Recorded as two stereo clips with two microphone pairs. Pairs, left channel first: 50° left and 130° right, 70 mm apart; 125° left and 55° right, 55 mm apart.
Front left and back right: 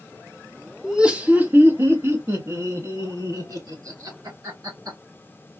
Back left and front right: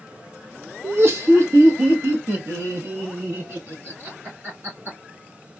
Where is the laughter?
50° right, 1.1 m; by 5.0 s 105° right, 3.5 m.